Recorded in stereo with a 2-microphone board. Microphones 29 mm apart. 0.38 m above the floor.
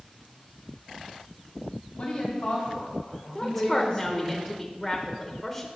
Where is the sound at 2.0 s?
55° left (ahead or behind), 3 m; by 4.3 s 15° left (ahead or behind), 1.9 m.